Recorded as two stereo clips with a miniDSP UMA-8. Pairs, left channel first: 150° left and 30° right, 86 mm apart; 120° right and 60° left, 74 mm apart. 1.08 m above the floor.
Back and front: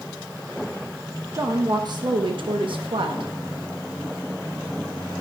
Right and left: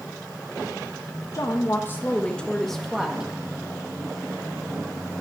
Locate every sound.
1.3 s a woman speaking: 80° right, 1.1 m; by 3.3 s 20° right, 1.5 m